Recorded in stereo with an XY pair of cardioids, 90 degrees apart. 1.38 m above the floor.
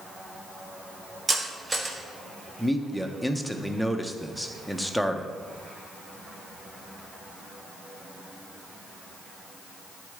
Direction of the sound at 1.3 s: 35° right.